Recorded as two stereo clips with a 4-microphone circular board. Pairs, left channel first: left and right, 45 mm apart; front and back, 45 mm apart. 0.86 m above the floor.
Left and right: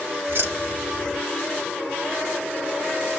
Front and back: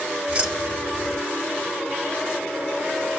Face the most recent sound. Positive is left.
turn(degrees=-115)